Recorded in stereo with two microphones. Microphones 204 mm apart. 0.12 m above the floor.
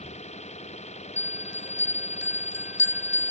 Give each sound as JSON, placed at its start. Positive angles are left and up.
{"t": 0.0, "sound": "an engine running", "side_deg": 35}
{"t": 1.2, "sound": "a bell", "side_deg": 65}